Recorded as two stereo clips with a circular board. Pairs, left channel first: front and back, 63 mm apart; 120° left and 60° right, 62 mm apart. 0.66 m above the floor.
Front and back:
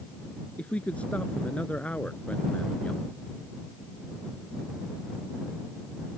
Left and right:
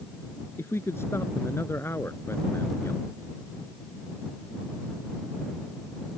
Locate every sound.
0.6 s a man speaking: 70° left